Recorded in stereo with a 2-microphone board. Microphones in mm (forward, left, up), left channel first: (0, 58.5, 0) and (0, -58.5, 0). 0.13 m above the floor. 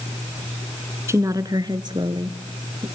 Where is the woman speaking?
25° right (ahead or behind), 1.1 m; by 2.9 s 45° right (ahead or behind), 2.5 m.